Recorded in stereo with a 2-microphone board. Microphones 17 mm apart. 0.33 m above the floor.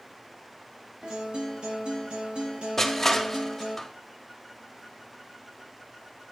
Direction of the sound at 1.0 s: 80° right.